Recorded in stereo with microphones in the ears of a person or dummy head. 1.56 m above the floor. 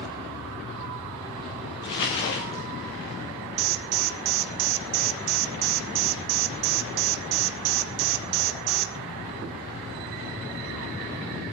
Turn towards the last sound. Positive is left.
turn(degrees=-80)